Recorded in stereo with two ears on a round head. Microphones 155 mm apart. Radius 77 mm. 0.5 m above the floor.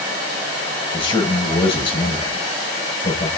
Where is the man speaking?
25° left (ahead or behind), 9 m.